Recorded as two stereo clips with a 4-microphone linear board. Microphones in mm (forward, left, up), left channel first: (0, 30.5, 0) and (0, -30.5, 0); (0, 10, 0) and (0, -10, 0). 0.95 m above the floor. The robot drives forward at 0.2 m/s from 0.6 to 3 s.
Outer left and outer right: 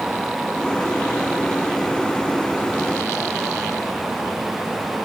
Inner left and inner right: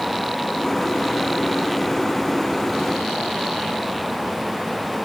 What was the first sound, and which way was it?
Only background noise.